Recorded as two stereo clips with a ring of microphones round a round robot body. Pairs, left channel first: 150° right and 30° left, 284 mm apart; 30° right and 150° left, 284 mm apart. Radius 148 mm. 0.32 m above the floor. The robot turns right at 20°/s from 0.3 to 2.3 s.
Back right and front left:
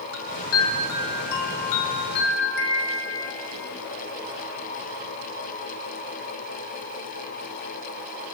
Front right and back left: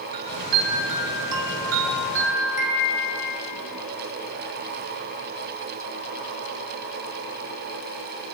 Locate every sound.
0.1 s a chime: 160° left, 4 m; by 3.3 s 160° right, 4 m